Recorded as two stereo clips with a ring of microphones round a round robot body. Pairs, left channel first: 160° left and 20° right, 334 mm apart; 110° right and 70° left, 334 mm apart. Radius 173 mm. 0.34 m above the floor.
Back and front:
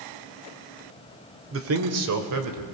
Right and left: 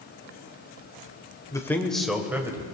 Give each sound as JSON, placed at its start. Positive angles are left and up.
{"t": 1.5, "sound": "a man speaking", "azimuth_deg": -40, "distance_m": 1.2}